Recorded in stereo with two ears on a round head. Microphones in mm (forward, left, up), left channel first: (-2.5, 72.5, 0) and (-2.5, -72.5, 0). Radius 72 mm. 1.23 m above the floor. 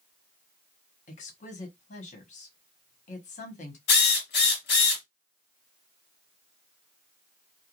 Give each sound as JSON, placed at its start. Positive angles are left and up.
{"t": 1.1, "sound": "a woman speaking", "side_deg": 50, "distance_m": 1.1}
{"t": 3.9, "sound": "a drill", "side_deg": 75, "distance_m": 1.6}